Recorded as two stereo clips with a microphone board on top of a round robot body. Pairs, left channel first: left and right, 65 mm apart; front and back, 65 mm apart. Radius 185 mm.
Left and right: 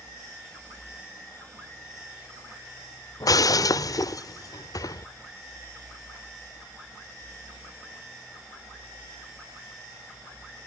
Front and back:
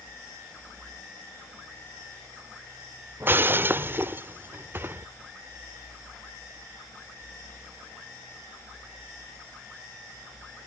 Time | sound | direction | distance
3.2 | breaking glass | 120° left | ?